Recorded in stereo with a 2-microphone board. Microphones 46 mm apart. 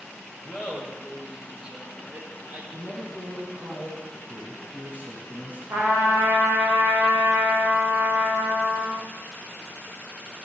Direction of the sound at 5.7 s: 85° right.